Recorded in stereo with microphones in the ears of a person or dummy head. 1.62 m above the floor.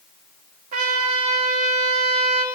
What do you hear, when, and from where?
0.7 s a trumpet: 45° right (ahead or behind), 2.5 m